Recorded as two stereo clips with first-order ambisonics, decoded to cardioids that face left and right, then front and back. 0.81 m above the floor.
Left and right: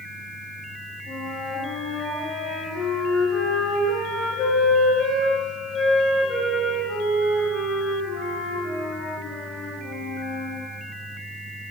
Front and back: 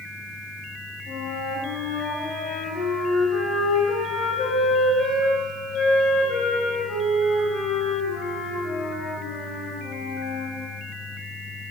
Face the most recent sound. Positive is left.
turn(degrees=40)